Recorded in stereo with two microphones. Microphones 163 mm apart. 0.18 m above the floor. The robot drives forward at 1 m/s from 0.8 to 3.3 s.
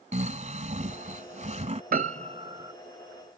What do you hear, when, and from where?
0.1 s snoring: 45° right (ahead or behind)
1.9 s a piano: 65° right (ahead or behind); by 2.7 s 25° right (ahead or behind)